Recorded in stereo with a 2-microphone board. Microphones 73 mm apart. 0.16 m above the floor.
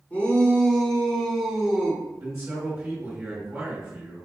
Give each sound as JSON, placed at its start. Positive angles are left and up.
{"t": 0.1, "sound": "a shout", "side_deg": 25, "distance_m": 1.4}
{"t": 2.2, "sound": "a man speaking", "side_deg": -25, "distance_m": 1.8}